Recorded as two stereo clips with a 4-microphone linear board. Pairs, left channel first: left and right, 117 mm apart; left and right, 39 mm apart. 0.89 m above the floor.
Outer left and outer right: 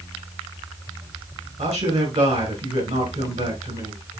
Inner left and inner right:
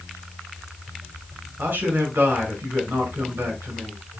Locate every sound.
1.6 s a man speaking: 80° right, 5.5 m